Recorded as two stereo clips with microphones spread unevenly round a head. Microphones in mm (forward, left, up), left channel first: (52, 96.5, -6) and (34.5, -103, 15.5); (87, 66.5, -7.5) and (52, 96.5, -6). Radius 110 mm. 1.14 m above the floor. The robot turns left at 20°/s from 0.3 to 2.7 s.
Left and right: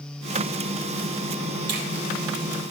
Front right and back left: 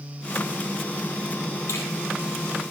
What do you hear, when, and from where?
1.7 s a finger snap: 65° right, 3.5 m